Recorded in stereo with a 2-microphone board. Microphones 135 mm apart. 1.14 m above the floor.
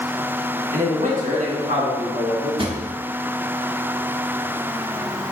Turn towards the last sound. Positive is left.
turn(degrees=-40)  # may be behind; listen again after turning